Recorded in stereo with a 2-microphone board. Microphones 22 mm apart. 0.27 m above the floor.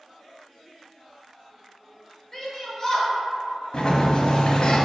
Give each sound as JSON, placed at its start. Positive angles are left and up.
{"t": 2.3, "sound": "a shout", "side_deg": 25, "distance_m": 1.3}
{"t": 3.7, "sound": "a sliding door", "side_deg": 50, "distance_m": 0.5}